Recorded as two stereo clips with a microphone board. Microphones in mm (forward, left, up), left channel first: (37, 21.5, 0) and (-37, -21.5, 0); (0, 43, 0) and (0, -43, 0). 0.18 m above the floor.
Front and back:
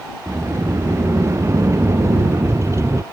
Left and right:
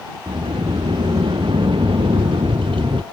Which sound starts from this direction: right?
A sliding door, at 0.3 s.